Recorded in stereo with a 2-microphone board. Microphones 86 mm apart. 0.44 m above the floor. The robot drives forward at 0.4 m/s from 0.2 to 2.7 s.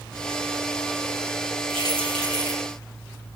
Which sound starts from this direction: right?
Keys jangling, at 1.7 s.